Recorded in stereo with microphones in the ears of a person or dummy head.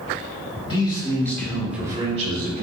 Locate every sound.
0.7 s a man speaking: 25° left (ahead or behind), 1.2 m; by 2.6 s 60° right (ahead or behind), 0.7 m